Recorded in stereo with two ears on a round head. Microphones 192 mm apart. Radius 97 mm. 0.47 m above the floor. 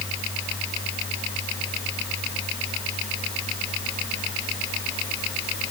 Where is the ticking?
No ticking in this recording.